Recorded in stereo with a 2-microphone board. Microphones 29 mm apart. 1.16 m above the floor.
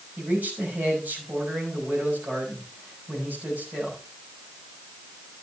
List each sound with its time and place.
0.2 s a man speaking: 75° right (ahead or behind), 6 m